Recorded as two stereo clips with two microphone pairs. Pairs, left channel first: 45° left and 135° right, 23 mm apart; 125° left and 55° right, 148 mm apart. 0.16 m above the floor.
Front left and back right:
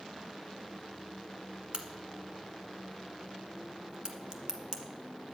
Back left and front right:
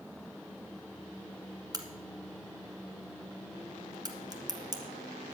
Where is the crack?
105° right, 1.4 m.